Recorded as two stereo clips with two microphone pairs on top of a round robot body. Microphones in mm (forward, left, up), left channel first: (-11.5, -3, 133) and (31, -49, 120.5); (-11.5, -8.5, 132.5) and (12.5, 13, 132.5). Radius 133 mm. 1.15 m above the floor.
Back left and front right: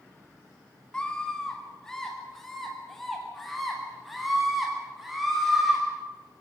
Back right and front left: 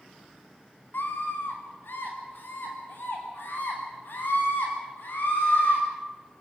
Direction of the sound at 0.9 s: 150° right.